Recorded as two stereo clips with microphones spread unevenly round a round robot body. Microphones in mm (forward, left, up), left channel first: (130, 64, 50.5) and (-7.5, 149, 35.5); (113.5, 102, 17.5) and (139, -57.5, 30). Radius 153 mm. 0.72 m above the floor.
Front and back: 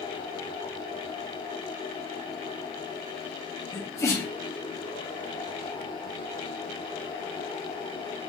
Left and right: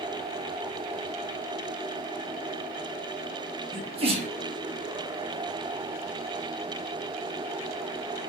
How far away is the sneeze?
About 1.2 m.